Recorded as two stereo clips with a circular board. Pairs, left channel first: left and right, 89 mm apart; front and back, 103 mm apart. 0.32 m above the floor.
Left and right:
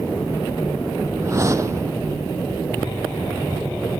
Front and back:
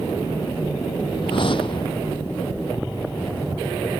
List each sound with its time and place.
1.2 s a whoosh: 35° right